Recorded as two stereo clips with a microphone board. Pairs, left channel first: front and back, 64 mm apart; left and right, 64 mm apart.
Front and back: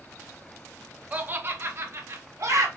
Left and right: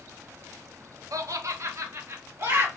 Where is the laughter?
115° right, 0.6 m; by 2.7 s 140° right, 1.3 m.